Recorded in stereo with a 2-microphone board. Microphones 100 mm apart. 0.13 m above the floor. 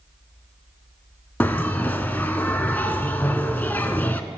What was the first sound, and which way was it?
A bell, 15° left (ahead or behind).